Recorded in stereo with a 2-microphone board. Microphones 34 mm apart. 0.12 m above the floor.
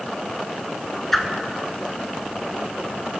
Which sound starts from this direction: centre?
A whoosh, at 1.1 s.